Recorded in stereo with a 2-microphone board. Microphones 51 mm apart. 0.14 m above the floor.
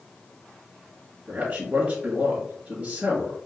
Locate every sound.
1.3 s a man speaking: 25° right (ahead or behind), 1.9 m